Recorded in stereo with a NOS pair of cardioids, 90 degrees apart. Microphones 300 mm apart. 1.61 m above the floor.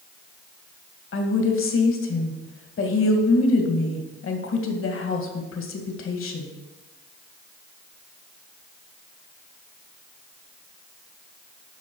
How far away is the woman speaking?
About 2 m.